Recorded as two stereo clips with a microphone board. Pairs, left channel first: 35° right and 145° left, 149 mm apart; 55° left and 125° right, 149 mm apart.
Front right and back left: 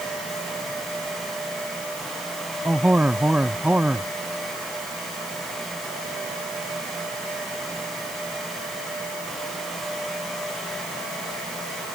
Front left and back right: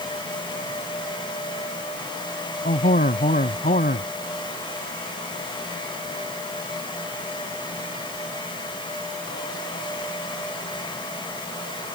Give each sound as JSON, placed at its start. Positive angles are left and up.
{"t": 2.6, "sound": "a man speaking", "azimuth_deg": 65}